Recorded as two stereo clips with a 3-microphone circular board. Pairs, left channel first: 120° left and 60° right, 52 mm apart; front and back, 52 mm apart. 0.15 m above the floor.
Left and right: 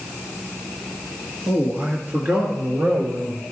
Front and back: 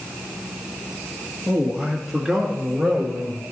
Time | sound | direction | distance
1.5 | a man speaking | 85° right | 1.5 m